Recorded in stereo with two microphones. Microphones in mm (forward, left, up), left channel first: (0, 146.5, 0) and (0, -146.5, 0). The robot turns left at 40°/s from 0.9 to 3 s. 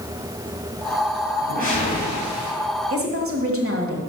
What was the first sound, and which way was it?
A whoosh, 40° left.